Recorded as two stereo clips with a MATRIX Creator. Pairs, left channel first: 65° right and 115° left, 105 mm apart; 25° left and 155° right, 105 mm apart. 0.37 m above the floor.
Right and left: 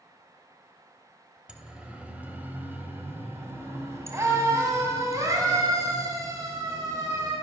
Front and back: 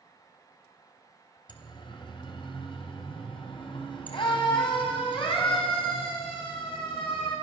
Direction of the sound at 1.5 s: 30° left.